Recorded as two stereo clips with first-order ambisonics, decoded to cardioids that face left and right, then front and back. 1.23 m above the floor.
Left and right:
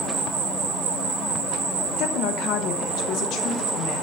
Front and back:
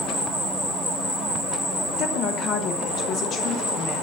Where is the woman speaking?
50° left, 1.0 m.